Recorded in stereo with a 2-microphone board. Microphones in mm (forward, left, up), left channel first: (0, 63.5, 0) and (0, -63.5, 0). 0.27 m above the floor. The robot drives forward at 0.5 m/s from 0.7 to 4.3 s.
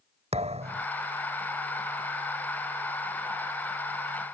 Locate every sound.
0.3 s a thud: 60° right (ahead or behind)